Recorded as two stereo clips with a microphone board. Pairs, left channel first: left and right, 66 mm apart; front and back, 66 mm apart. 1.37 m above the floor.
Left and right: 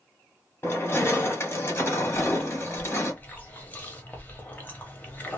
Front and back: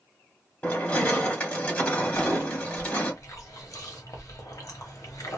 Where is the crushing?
60° left, 1.3 m.